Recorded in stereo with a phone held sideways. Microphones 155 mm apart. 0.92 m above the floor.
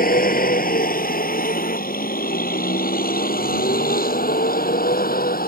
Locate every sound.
0.0 s a vehicle: 70° left (ahead or behind)